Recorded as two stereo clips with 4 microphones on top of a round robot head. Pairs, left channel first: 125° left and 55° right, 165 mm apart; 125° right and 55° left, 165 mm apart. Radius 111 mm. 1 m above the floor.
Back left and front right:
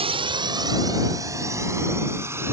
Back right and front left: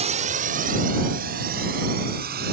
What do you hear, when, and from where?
0.0 s a drone: 5° left; by 2.5 s 20° left